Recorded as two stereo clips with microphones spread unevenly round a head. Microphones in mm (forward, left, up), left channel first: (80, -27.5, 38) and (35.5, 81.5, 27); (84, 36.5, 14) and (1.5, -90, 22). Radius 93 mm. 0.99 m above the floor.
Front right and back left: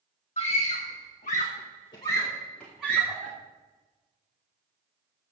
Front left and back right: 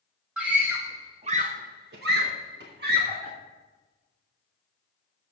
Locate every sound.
0.4 s a scream: 40° right, 1.5 m; by 3.3 s 165° right, 2 m